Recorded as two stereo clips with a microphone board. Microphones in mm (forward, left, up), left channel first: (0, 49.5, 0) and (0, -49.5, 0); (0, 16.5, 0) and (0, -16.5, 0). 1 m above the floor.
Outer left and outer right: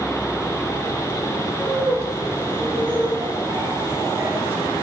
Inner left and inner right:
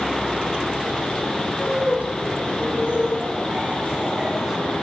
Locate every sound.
1.6 s laughter: 75° right (ahead or behind), 4 m; by 4.6 s 20° right (ahead or behind), 1.7 m